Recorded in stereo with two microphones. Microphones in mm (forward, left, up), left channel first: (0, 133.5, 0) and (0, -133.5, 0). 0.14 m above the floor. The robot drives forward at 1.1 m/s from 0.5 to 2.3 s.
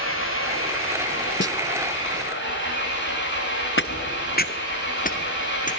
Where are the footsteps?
45° left (ahead or behind), 1.0 m; by 5.7 s 30° left (ahead or behind), 3.5 m.